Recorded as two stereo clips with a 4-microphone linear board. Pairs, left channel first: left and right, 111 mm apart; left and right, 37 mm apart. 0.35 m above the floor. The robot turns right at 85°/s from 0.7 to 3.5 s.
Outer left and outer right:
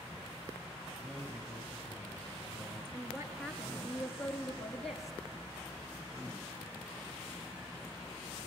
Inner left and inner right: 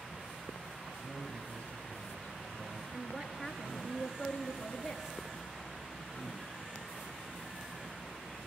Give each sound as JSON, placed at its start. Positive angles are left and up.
{"t": 1.0, "sound": "a man speaking", "azimuth_deg": -5, "distance_m": 7.0}
{"t": 2.9, "sound": "a woman speaking", "azimuth_deg": -50, "distance_m": 5.0}